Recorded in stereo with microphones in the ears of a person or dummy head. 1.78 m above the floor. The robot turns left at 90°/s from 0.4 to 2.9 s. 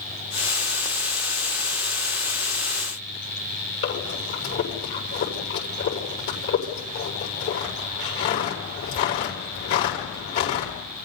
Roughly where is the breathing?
Left.